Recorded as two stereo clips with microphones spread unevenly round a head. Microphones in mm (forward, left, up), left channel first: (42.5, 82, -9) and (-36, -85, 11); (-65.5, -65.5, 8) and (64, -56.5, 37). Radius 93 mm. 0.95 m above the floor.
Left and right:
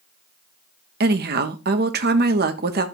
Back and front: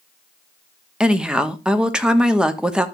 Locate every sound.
1.0 s a woman speaking: 90° right, 1.2 m